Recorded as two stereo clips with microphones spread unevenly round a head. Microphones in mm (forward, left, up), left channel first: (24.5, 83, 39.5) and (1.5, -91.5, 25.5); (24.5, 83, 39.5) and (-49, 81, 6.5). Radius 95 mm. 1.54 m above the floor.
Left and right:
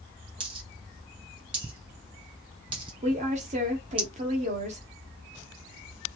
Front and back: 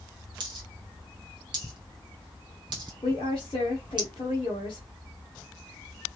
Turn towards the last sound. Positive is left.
turn(degrees=-45)